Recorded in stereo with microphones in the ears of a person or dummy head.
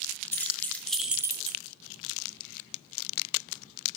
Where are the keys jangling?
10° left (ahead or behind), 2 m; by 1.6 s 50° right (ahead or behind), 0.6 m.